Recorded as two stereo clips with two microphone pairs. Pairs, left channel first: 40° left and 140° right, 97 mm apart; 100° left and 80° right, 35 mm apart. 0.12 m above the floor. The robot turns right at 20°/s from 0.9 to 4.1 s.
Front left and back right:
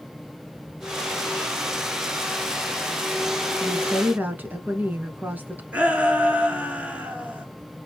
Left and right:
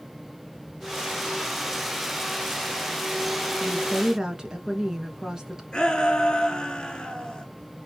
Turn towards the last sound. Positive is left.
turn(degrees=150)